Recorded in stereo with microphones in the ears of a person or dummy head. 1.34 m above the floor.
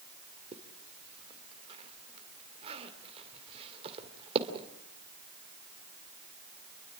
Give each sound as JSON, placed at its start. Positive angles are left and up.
{"t": 0.5, "sound": "a zipper", "side_deg": -30, "distance_m": 2.5}